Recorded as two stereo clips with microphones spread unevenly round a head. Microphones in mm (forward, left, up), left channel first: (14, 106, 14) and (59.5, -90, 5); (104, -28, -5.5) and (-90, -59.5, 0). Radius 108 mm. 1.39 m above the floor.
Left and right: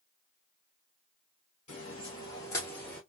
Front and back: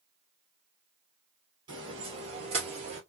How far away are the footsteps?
About 1.6 m.